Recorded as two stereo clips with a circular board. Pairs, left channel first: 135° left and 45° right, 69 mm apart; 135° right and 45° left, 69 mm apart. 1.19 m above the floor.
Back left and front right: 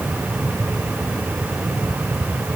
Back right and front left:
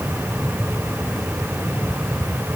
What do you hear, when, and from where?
Only background noise.